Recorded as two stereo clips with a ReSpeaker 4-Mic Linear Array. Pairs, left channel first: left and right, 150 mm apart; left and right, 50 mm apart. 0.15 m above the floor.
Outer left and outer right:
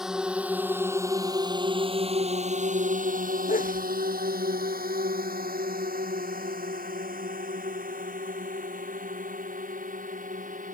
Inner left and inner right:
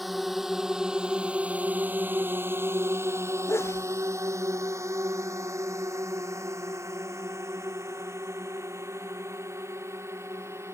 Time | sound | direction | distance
0.0 | a drone | 5° right (ahead or behind) | ?
3.5 | a sneeze | 65° left (ahead or behind) | ?